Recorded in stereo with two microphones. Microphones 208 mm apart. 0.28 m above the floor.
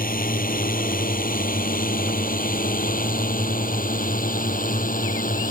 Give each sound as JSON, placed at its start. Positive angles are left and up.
{"t": 0.0, "sound": "a drone", "side_deg": 45}